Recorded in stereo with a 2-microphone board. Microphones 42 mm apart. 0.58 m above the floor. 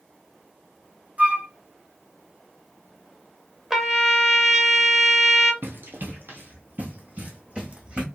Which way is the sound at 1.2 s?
35° right (ahead or behind).